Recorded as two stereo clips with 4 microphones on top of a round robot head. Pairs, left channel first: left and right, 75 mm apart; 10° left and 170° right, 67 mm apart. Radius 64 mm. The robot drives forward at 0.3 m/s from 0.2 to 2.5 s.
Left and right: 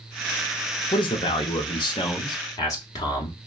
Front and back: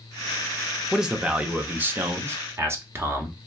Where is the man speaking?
105° left, 0.6 m; by 3.3 s 140° left, 0.9 m.